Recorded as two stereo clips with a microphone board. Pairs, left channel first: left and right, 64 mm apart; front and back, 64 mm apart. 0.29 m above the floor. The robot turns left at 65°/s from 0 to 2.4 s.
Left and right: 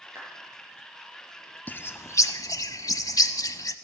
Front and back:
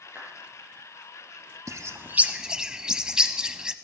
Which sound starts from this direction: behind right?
A clap, at 0.1 s.